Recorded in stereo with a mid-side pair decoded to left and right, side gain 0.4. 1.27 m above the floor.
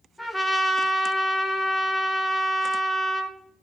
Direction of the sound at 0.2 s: 5° left.